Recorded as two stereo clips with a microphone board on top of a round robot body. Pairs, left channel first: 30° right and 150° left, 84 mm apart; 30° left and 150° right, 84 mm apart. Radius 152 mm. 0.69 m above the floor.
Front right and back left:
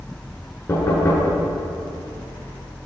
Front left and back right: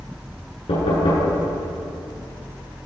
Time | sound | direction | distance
0.7 | knocking | 30° left | 9 m